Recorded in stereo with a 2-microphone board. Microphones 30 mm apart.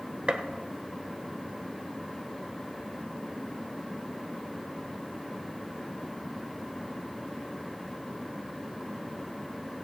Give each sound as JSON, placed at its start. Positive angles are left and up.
{"t": 0.3, "sound": "a gunshot", "side_deg": -40, "distance_m": 1.0}